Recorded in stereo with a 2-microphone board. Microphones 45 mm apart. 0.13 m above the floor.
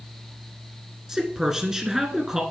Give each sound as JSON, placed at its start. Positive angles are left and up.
{"t": 1.1, "sound": "a man speaking", "side_deg": -15, "distance_m": 1.4}